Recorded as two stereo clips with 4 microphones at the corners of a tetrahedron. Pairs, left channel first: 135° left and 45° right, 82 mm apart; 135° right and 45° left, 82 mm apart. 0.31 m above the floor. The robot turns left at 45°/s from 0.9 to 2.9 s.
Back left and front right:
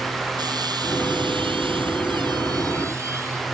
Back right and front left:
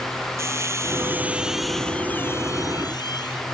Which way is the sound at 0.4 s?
10° right.